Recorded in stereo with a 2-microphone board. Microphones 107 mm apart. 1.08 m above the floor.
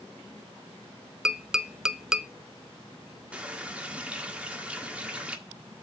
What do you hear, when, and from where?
1.2 s tapping: 5° right (ahead or behind), 0.6 m
3.3 s a running tap: 10° right (ahead or behind), 1.6 m